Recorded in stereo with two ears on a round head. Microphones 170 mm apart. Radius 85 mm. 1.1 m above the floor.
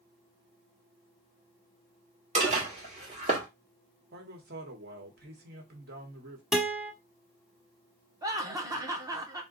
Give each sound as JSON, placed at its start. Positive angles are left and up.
{"t": 2.4, "sound": "dishes clattering", "side_deg": -35, "distance_m": 1.4}
{"t": 4.1, "sound": "a man speaking", "side_deg": -55, "distance_m": 1.2}
{"t": 6.5, "sound": "a guitar", "side_deg": 0, "distance_m": 0.8}
{"t": 8.2, "sound": "laughter", "side_deg": -20, "distance_m": 0.8}